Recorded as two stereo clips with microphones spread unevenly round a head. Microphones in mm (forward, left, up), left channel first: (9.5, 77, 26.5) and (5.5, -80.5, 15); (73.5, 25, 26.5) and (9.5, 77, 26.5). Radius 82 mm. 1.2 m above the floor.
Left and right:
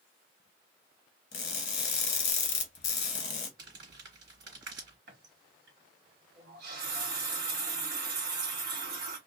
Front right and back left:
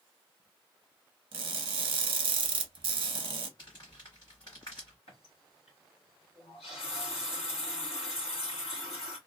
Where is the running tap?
70° right, 1.4 m.